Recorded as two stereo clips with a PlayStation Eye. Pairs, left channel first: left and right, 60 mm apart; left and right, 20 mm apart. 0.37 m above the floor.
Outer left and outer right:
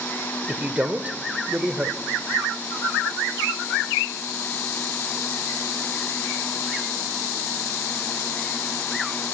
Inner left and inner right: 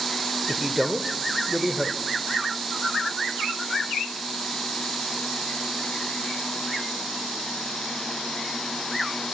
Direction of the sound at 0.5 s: 25° right (ahead or behind).